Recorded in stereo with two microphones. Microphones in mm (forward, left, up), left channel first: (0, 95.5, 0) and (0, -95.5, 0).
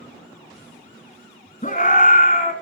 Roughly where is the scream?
Left.